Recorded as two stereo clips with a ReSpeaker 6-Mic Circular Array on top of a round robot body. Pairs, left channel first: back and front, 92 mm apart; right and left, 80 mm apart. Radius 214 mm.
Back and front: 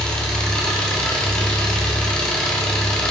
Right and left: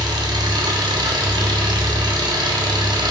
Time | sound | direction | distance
0.0 | an engine running | 100° left | 1.9 m